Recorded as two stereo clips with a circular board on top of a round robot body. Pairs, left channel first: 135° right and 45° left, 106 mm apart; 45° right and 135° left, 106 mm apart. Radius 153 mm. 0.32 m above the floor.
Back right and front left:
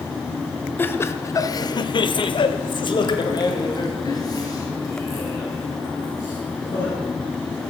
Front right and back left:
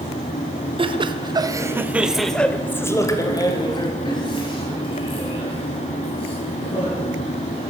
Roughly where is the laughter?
Behind left.